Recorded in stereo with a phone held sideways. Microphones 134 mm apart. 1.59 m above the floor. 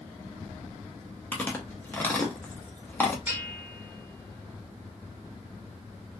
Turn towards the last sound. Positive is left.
turn(degrees=-15)  # may be behind; listen again after turning